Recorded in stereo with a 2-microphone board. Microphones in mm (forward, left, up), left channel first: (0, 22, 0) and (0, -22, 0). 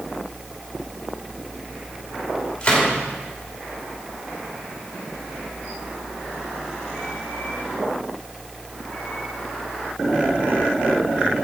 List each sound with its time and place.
2.6 s a gunshot: 25° left (ahead or behind), 2.5 m